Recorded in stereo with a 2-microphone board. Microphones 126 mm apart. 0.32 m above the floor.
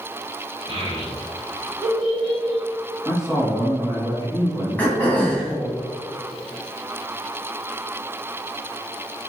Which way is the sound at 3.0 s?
35° right (ahead or behind).